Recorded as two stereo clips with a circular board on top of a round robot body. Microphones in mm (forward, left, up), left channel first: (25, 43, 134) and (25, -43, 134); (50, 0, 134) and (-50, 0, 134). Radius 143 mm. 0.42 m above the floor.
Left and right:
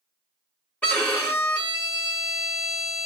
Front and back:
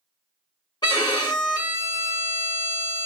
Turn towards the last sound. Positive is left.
turn(degrees=20)